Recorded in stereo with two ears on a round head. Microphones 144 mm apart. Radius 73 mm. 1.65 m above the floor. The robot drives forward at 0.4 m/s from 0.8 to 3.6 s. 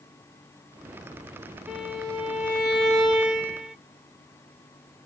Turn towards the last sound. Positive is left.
turn(degrees=-5)  # may be behind; listen again after turning